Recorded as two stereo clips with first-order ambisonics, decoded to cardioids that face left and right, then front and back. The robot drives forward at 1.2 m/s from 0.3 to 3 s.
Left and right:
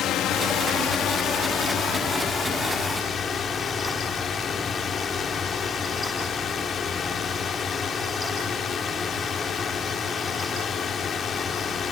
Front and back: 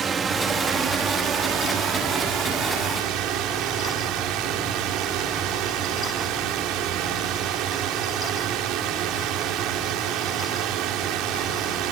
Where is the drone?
120° left; by 11.9 s 155° left.